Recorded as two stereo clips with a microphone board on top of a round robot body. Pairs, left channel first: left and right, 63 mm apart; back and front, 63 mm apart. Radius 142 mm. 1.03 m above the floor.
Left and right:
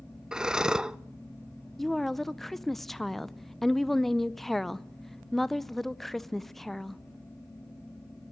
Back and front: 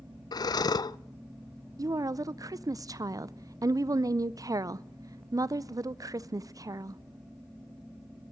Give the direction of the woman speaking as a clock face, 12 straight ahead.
12 o'clock.